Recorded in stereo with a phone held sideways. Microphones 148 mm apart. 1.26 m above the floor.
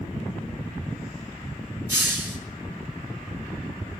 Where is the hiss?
15° right (ahead or behind), 4 m.